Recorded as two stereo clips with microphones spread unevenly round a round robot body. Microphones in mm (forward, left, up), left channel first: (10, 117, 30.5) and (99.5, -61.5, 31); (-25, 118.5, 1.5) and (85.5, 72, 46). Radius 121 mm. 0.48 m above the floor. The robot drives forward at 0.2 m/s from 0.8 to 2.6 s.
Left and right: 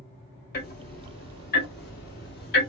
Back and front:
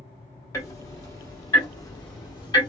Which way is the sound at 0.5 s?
130° left.